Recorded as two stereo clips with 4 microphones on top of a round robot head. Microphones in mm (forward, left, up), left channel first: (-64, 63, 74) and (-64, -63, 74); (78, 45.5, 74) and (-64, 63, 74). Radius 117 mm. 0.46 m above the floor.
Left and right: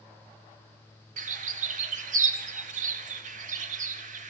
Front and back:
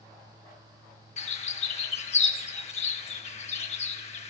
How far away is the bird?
About 0.6 m.